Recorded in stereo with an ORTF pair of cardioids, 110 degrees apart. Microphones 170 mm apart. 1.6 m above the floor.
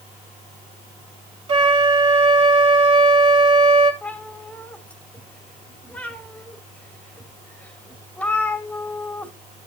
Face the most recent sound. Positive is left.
turn(degrees=10)